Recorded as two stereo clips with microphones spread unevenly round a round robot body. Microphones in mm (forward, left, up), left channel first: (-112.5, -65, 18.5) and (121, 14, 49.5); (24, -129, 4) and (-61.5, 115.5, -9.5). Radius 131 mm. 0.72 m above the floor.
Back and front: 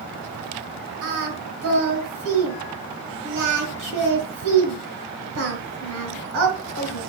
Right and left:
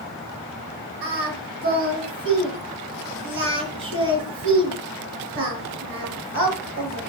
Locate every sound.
1.0 s singing: 60° left, 3.5 m